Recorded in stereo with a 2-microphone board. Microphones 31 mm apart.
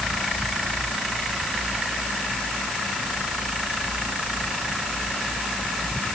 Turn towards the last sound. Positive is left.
No sound to turn to.